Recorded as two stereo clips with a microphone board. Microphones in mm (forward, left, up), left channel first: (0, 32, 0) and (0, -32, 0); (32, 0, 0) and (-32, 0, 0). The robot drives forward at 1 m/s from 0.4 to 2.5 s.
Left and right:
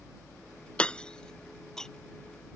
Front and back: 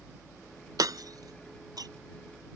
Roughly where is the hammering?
Behind.